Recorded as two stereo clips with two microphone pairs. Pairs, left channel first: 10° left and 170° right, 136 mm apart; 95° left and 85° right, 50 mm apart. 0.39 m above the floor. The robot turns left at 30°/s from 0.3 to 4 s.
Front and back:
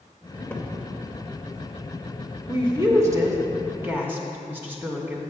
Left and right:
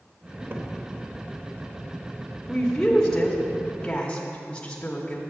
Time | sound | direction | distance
0.5 | a cupboard door | 55° right | 0.8 m
2.5 | a woman speaking | 175° right | 0.9 m